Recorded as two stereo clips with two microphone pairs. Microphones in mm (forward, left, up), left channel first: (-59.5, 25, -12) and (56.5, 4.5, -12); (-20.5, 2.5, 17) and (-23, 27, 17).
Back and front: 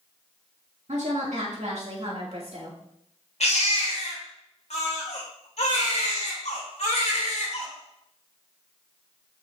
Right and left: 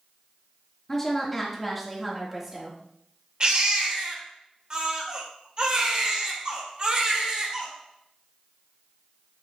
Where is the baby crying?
145° left, 1.8 m.